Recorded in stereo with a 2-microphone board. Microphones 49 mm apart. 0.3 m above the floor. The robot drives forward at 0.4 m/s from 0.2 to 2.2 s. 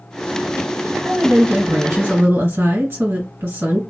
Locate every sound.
1.1 s a woman speaking: 55° right (ahead or behind), 2 m